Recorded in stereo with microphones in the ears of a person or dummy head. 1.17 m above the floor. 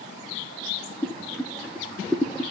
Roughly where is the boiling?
Centre.